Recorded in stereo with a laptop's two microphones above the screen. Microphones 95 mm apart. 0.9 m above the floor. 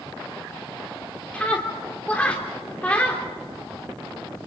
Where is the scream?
15° left (ahead or behind), 3 m.